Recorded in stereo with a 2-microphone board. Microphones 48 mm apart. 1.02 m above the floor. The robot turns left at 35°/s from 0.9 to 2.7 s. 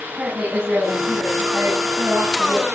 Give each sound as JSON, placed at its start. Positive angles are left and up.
{"t": 0.2, "sound": "a woman speaking", "azimuth_deg": -30, "distance_m": 9.0}